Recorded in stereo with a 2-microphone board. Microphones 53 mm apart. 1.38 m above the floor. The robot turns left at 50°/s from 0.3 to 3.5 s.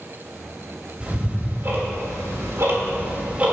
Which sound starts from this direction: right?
Ticking, at 1.0 s.